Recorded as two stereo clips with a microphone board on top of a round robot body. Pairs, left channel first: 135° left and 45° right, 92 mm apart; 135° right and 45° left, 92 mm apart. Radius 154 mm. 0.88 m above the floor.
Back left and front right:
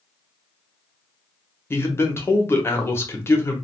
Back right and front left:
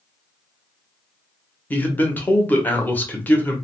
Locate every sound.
1.7 s a man speaking: 170° left, 1.1 m